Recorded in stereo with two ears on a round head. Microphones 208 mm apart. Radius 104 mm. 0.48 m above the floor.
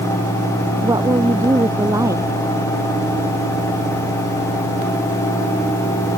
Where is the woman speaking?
15° right (ahead or behind).